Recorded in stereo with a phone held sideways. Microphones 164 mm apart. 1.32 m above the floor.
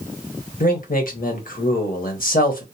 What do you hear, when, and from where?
0.6 s a man speaking: 60° left (ahead or behind), 1.2 m